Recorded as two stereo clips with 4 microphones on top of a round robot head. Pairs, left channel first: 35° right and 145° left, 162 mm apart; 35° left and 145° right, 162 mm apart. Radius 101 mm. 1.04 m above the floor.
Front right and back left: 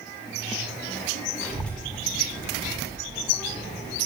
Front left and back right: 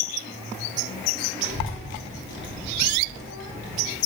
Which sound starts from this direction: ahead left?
A child speaking, at 1.4 s.